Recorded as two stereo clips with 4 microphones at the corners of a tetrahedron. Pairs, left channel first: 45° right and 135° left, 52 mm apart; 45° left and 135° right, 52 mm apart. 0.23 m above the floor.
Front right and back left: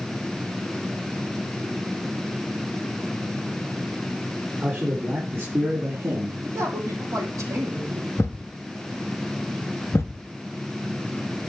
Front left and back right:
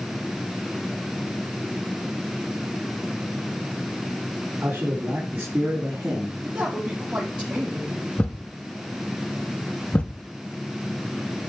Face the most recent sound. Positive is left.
turn(degrees=-15)